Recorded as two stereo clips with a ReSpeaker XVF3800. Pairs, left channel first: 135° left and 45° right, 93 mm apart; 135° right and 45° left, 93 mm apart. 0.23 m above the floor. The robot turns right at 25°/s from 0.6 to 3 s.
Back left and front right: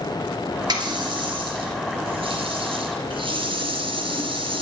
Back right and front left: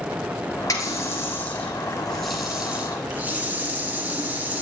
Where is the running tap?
85° right, 3 m; by 4.6 s 25° right, 3 m.